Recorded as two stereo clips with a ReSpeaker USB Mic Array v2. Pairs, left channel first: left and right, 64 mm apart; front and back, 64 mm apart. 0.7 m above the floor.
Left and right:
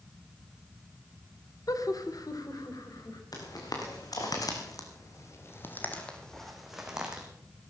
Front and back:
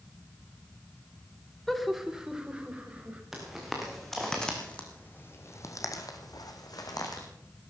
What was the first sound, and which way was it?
Laughter, 85° left.